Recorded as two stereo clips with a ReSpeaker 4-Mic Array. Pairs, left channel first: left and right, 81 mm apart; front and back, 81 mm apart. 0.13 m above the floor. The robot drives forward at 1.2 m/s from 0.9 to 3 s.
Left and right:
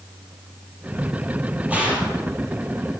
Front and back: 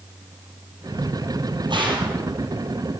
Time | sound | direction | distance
1.7 | a gunshot | 165° right | 4 m